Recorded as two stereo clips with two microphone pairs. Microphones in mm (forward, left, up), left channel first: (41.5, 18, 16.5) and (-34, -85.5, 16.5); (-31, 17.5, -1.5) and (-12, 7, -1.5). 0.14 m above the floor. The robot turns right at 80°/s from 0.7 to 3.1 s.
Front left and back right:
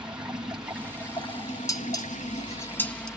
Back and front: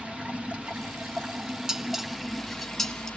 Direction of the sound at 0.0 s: 45° right.